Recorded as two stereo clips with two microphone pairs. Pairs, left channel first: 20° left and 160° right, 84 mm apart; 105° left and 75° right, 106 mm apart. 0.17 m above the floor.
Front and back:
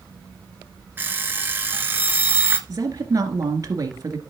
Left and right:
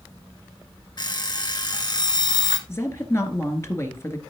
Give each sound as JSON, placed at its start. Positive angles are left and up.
{"t": 1.0, "sound": "an alarm clock", "azimuth_deg": 140, "distance_m": 1.6}
{"t": 2.7, "sound": "a woman speaking", "azimuth_deg": 165, "distance_m": 2.0}